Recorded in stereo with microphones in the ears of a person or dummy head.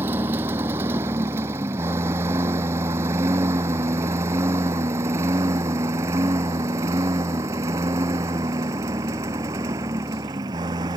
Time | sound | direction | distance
0.0 | a lawn mower | 10° right (ahead or behind) | ?